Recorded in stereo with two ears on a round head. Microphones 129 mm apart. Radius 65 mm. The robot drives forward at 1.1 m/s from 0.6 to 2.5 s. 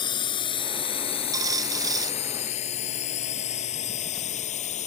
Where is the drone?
30° left (ahead or behind); by 4.9 s 50° left (ahead or behind).